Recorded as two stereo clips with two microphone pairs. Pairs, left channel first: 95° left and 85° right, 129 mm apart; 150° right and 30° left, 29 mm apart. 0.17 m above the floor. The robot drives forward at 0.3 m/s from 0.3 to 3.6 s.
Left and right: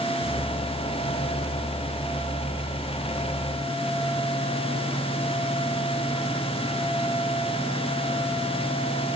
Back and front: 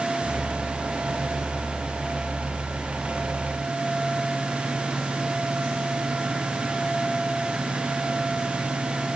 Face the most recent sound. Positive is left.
No sound to turn to.